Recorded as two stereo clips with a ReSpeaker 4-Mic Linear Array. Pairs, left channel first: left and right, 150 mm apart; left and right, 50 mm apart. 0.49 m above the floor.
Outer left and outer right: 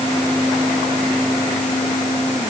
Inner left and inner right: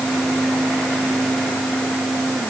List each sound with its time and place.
Only background noise.